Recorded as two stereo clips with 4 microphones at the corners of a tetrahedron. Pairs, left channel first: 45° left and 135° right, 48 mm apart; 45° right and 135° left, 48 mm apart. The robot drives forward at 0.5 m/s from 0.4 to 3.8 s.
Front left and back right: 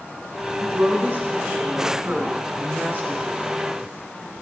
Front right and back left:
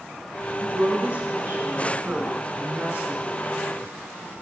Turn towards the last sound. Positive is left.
turn(degrees=175)